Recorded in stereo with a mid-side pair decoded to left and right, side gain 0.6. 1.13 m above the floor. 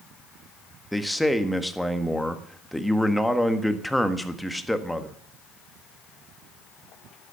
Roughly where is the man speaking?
Ahead.